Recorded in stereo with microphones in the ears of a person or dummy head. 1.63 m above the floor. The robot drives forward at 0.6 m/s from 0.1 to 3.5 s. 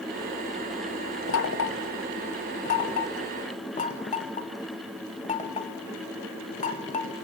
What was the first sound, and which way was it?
Knocking, 65° left (ahead or behind).